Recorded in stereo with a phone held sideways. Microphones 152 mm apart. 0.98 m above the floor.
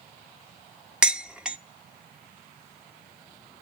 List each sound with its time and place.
1.0 s dishes clattering: 5° right (ahead or behind), 0.8 m